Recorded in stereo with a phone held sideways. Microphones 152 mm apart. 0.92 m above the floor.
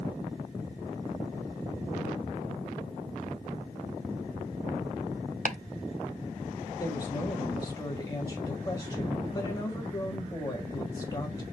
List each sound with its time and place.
5.5 s chopping: 60° right (ahead or behind), 0.5 m
6.8 s a woman speaking: 25° left (ahead or behind), 1.6 m